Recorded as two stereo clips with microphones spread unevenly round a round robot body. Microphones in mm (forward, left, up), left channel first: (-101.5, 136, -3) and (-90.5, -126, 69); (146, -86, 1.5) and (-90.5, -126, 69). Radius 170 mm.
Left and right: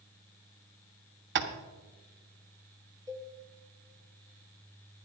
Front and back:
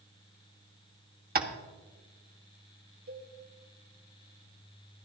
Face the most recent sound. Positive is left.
turn(degrees=180)